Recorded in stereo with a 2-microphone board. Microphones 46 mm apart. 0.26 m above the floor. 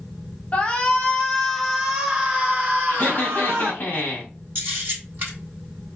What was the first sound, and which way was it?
A shout, 25° left (ahead or behind).